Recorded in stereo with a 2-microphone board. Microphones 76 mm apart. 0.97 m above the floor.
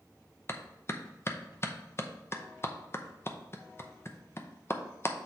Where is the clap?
35° left (ahead or behind), 0.6 m.